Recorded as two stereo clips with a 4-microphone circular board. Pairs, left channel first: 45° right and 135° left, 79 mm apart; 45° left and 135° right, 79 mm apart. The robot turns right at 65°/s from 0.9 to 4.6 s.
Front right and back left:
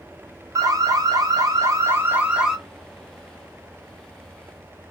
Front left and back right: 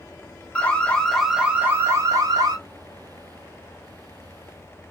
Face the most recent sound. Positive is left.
turn(degrees=-5)